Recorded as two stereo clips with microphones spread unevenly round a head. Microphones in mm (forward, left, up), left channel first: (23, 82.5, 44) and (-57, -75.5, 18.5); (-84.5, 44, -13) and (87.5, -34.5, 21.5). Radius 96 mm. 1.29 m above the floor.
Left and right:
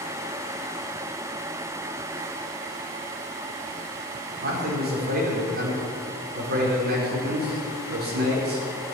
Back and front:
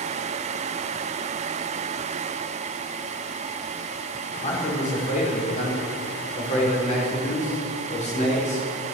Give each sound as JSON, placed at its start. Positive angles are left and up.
{"t": 4.4, "sound": "a man speaking", "azimuth_deg": -150, "distance_m": 5.0}